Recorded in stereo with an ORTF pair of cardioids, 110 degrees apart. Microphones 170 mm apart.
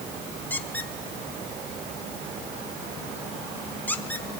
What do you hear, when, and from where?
0.5 s a squeak: 10° left, 1.3 m